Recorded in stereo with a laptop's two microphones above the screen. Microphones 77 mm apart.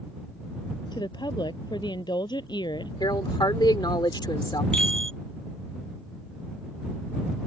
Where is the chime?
15° left (ahead or behind).